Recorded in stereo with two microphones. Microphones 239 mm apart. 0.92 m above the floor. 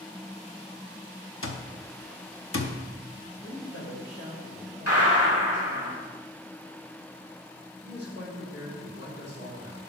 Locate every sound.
1.4 s an alarm clock: 60° left (ahead or behind), 0.8 m
3.4 s a woman speaking: 70° left (ahead or behind), 3.5 m
4.9 s a gunshot: 70° left (ahead or behind), 3 m
7.8 s a man speaking: 50° left (ahead or behind), 3.5 m